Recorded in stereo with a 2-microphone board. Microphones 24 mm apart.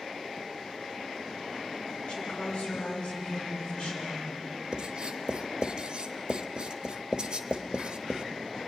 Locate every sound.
2.1 s a woman speaking: 45° left (ahead or behind), 7 m
4.7 s writing: 40° right (ahead or behind), 1.4 m